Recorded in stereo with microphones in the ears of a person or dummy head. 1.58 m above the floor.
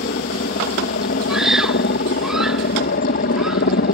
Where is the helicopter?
45° left (ahead or behind).